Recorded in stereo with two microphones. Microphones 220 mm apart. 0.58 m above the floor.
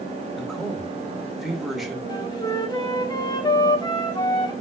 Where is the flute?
20° left (ahead or behind), 1.6 m.